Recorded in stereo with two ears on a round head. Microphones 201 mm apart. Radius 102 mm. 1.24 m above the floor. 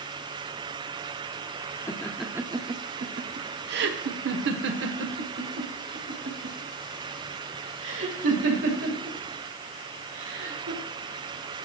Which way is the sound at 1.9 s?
15° left (ahead or behind).